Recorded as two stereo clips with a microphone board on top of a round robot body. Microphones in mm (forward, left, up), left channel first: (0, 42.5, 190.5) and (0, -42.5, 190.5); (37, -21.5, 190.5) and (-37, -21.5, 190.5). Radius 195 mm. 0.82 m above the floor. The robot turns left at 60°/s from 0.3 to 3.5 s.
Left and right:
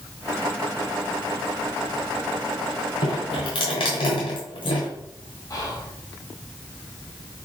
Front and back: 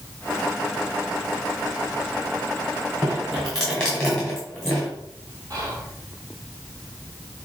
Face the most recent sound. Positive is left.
turn(degrees=140)